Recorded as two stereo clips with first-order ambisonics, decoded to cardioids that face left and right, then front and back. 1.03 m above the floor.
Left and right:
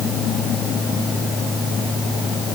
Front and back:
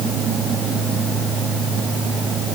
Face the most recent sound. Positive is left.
No sound to turn to.